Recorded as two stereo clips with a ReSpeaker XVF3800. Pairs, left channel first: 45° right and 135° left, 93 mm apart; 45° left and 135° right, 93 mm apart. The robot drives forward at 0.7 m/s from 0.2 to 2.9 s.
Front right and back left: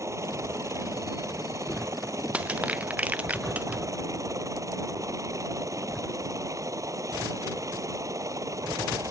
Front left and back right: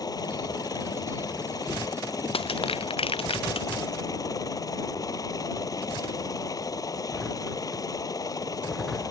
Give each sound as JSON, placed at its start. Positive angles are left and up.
{"t": 0.0, "sound": "a helicopter", "azimuth_deg": 85}
{"t": 2.3, "sound": "crushing", "azimuth_deg": 60}